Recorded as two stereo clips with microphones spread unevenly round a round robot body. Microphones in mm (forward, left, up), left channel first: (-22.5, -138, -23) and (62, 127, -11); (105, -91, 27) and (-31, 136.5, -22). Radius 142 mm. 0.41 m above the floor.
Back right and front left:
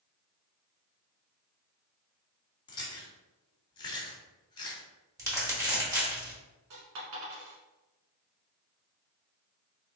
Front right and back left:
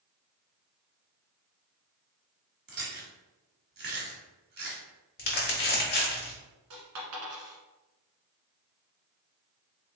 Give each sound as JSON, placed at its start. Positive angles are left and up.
{"t": 2.7, "sound": "chewing", "azimuth_deg": 180, "distance_m": 1.3}
{"t": 5.2, "sound": "crumpling", "azimuth_deg": -5, "distance_m": 1.5}
{"t": 6.7, "sound": "a dropped coin", "azimuth_deg": 100, "distance_m": 1.6}